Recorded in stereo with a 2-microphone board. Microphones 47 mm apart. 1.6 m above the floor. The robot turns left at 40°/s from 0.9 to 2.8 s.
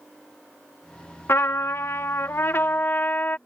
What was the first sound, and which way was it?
A trumpet, 110° left.